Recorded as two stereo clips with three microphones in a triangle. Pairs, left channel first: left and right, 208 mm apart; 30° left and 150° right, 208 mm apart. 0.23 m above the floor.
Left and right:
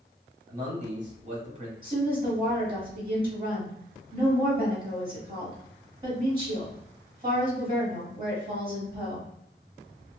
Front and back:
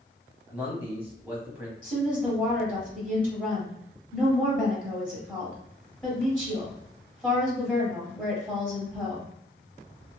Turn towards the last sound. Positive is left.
turn(degrees=-50)